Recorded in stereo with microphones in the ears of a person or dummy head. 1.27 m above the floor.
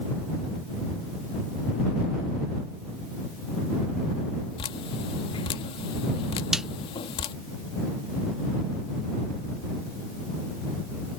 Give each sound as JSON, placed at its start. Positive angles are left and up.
{"t": 4.6, "sound": "dripping", "side_deg": 30}
{"t": 6.5, "sound": "a snare drum", "side_deg": -5}